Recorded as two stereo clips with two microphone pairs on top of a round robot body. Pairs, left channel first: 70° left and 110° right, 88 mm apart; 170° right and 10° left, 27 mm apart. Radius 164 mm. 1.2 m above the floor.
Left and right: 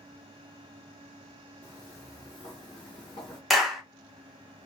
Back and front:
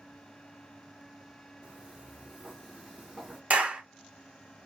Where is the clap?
20° right, 1.1 m.